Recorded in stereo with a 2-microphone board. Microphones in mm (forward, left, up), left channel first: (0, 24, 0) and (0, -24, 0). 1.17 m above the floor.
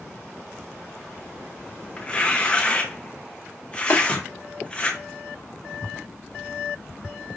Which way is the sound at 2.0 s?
20° left (ahead or behind).